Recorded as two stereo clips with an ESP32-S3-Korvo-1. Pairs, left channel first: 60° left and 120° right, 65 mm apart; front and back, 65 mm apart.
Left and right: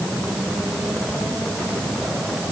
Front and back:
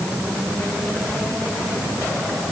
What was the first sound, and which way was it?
Only background noise.